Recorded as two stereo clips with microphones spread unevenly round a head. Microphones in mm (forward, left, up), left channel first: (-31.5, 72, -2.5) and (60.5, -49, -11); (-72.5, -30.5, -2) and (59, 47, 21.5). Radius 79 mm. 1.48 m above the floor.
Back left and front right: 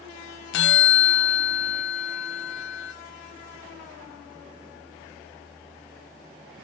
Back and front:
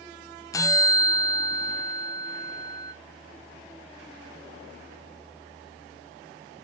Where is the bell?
135° left, 0.5 m.